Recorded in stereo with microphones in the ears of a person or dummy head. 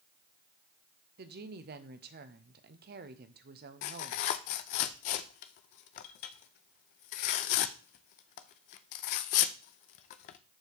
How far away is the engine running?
No engine running in this recording.